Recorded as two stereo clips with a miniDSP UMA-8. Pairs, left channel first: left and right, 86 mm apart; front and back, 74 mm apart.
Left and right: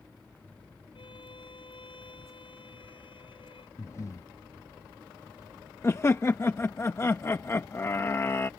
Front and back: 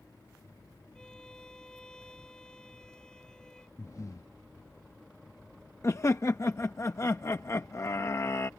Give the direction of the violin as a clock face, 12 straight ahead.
9 o'clock.